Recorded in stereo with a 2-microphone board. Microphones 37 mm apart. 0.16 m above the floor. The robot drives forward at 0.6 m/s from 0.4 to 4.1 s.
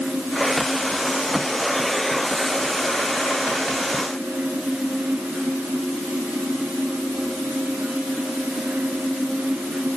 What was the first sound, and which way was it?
Only background noise.